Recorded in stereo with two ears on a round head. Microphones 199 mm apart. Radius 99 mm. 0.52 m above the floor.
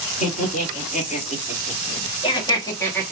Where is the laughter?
35° left (ahead or behind), 2.5 m; by 3.1 s 5° left (ahead or behind), 1.3 m.